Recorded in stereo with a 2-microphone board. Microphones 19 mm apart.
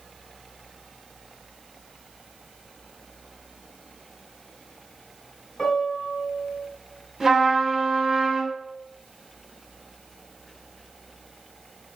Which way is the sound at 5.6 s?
30° left (ahead or behind).